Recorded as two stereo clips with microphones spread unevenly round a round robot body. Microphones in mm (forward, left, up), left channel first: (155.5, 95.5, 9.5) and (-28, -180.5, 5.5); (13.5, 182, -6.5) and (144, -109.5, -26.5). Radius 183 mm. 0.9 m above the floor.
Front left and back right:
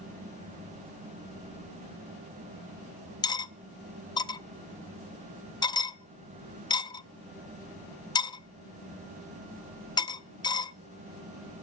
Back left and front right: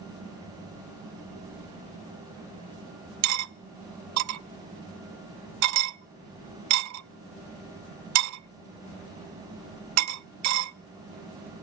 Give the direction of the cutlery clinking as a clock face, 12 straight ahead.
1 o'clock.